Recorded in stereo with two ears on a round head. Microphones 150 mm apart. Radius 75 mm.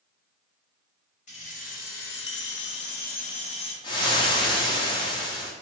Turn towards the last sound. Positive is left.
turn(degrees=25)  # may be behind; listen again after turning